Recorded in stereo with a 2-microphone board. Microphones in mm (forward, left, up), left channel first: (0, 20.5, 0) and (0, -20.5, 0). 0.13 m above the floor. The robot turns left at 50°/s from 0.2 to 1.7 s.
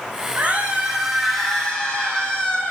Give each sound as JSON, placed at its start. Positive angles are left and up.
{"t": 0.4, "sound": "a scream", "azimuth_deg": -135, "distance_m": 6.5}